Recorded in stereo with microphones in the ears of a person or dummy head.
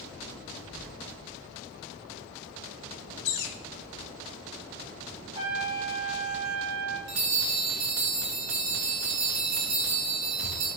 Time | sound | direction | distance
3.2 | a bird | 60° left (ahead or behind) | 0.8 m
5.3 | a trumpet | 30° right (ahead or behind) | 1.5 m
7.1 | a bell | 80° right | 3 m